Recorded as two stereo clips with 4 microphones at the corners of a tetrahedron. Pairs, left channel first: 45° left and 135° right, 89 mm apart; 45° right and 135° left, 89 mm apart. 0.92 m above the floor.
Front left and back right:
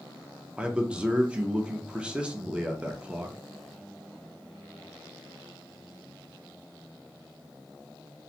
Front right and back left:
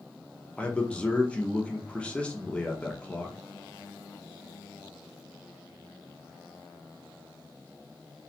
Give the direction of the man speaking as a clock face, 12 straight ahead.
3 o'clock.